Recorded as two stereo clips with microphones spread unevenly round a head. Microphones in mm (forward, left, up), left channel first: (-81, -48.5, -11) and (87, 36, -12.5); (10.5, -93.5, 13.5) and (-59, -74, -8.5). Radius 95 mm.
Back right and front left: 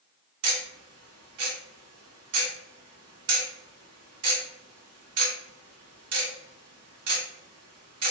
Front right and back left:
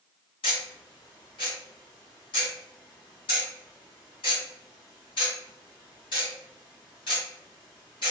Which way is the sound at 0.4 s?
30° left.